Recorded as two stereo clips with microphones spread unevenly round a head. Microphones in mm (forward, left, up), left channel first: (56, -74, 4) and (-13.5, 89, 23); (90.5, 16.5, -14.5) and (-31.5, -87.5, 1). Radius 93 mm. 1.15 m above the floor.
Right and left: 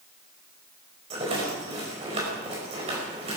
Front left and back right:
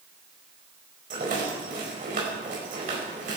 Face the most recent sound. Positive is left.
turn(degrees=170)